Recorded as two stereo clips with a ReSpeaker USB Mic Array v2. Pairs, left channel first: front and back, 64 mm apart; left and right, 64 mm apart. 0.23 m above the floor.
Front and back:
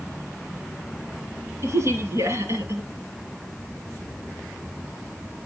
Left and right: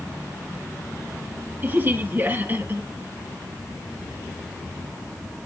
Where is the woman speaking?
145° right, 3 m.